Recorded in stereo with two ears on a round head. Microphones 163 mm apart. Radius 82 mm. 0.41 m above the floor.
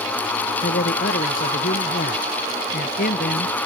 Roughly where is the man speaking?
Left.